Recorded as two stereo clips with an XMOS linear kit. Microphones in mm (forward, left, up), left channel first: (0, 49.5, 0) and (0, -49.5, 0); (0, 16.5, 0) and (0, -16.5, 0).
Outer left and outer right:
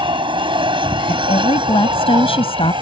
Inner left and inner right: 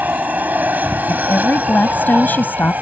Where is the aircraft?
55° right (ahead or behind).